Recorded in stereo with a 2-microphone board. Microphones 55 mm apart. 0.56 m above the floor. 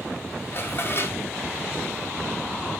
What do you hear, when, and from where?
0.5 s dishes clattering: 45° left (ahead or behind), 0.9 m